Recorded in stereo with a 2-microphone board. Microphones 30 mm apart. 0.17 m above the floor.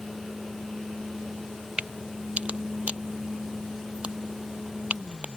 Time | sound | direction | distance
1.8 | a crack | 40° right (ahead or behind) | ?